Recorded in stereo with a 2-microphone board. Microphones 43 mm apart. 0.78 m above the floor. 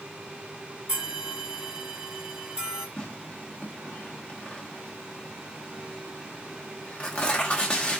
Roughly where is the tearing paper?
Left.